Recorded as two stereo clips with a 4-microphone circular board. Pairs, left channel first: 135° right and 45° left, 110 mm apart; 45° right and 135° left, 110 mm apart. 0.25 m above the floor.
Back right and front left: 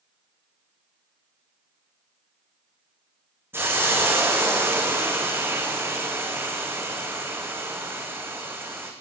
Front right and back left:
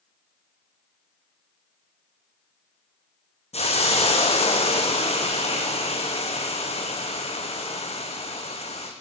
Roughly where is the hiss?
Ahead right.